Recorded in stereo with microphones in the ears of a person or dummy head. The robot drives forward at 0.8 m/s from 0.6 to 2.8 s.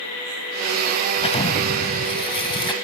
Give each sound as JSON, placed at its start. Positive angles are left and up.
{"t": 1.2, "sound": "an explosion", "side_deg": 40}